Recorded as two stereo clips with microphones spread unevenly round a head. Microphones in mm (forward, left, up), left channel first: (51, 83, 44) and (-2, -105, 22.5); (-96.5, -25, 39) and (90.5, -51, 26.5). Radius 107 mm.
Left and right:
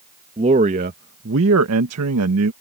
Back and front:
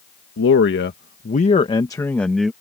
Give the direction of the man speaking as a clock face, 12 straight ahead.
6 o'clock.